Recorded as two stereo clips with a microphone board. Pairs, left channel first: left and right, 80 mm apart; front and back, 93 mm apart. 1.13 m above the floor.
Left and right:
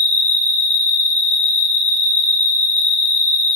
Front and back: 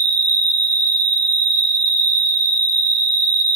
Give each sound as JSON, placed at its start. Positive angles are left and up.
{"t": 0.0, "sound": "an insect", "azimuth_deg": -125, "distance_m": 0.8}